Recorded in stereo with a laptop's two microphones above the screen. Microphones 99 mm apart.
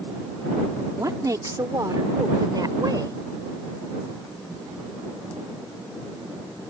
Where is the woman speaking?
35° right (ahead or behind); by 3.2 s 40° right (ahead or behind).